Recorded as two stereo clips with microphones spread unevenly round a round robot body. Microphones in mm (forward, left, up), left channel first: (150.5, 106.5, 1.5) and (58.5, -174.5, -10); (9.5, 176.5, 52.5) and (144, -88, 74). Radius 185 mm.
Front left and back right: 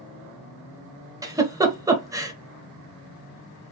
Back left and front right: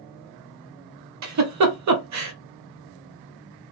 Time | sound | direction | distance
1.2 | a giggle | 30° right | 0.9 m